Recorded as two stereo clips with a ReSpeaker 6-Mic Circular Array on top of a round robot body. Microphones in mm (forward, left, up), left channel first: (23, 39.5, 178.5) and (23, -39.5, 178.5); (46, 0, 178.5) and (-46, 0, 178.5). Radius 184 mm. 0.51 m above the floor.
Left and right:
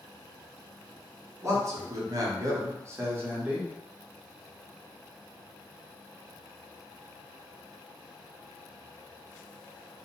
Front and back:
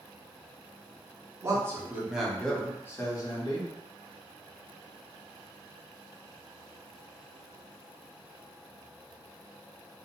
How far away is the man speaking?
About 1.3 m.